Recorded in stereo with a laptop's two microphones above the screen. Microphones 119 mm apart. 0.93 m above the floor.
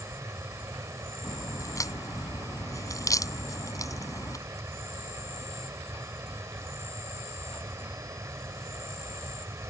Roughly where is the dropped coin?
No dropped coin in this recording.